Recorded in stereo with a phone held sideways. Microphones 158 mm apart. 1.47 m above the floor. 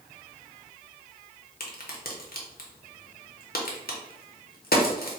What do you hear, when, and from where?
1.6 s a crack: 75° left (ahead or behind), 0.7 m